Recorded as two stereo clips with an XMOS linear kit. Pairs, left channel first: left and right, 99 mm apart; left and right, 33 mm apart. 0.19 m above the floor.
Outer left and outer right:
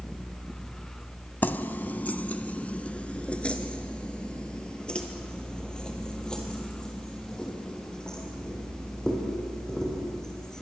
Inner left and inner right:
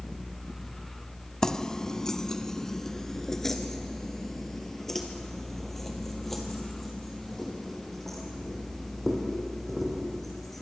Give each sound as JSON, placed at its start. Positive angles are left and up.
{"t": 1.4, "sound": "keys jangling", "side_deg": 20, "distance_m": 0.7}